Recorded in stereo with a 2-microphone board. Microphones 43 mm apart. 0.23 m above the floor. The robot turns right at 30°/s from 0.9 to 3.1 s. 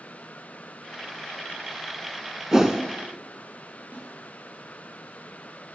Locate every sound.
2.5 s a whoosh: 15° right (ahead or behind), 0.7 m; by 2.8 s 5° right (ahead or behind), 0.7 m
3.9 s a snare drum: 45° right (ahead or behind), 3 m